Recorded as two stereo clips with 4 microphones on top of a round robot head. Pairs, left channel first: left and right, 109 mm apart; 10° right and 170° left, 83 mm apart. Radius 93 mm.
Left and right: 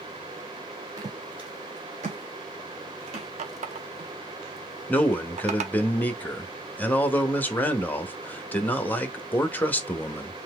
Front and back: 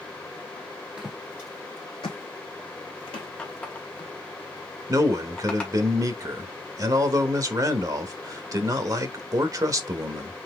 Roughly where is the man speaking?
Behind.